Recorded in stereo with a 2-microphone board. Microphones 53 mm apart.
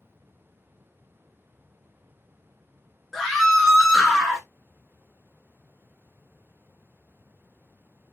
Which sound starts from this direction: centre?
A scream, at 3.1 s.